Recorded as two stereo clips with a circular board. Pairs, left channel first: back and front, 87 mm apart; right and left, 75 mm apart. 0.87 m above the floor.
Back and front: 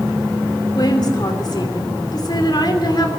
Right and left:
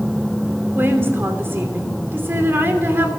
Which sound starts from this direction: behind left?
A woman speaking, at 0.8 s.